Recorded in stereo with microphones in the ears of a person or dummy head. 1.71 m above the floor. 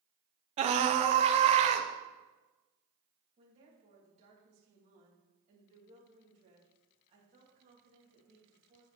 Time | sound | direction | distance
0.6 | a scream | 35° right (ahead or behind) | 0.8 m
3.4 | a woman speaking | 35° right (ahead or behind) | 3 m